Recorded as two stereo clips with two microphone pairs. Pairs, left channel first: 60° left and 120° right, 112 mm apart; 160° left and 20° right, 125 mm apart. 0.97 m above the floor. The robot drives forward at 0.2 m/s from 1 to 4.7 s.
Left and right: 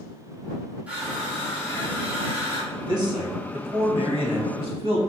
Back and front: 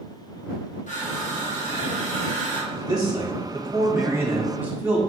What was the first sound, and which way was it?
Crushing, 160° left.